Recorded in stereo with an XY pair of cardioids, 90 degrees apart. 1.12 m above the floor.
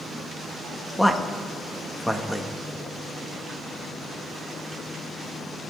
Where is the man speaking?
10° left, 1.7 m.